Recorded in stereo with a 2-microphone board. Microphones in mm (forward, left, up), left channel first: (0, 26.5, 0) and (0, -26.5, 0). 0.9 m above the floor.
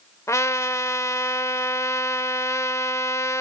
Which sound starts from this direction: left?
A trumpet, at 0.3 s.